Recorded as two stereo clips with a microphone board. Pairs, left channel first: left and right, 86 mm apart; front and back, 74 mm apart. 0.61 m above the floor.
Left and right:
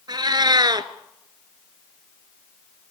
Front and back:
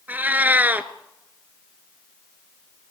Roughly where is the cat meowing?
Behind right.